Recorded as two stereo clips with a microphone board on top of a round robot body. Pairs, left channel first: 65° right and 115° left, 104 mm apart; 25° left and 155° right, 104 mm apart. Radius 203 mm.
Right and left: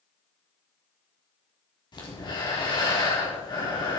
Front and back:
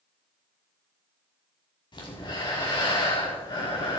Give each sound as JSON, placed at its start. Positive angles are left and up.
{"t": 1.9, "sound": "breathing", "azimuth_deg": -25, "distance_m": 5.0}